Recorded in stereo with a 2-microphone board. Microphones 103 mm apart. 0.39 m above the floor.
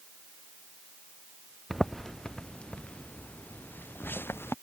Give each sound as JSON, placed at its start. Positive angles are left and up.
{"t": 1.7, "sound": "footsteps", "side_deg": 0}